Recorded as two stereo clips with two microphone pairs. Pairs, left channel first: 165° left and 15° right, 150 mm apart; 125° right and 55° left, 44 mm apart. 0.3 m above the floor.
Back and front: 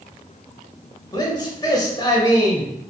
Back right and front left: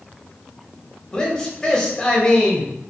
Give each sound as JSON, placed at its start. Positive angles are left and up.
{"t": 1.1, "sound": "a man speaking", "azimuth_deg": -175, "distance_m": 0.9}